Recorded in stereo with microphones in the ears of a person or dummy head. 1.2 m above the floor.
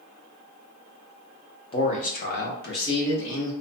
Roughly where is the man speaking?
Left.